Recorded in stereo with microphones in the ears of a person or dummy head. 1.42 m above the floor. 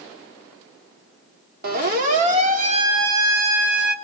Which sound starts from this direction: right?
A siren, at 1.6 s.